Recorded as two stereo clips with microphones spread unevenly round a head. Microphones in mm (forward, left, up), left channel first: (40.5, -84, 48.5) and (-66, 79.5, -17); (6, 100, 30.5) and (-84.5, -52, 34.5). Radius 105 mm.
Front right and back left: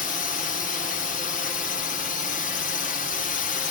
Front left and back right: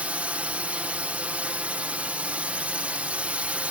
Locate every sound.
0.0 s a drone: 50° right